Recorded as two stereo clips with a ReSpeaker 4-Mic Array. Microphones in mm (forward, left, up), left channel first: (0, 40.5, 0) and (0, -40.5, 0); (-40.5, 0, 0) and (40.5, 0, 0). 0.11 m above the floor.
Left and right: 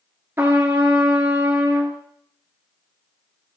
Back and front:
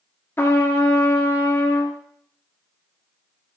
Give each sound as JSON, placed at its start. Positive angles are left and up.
{"t": 0.4, "sound": "a trumpet", "azimuth_deg": -135, "distance_m": 1.0}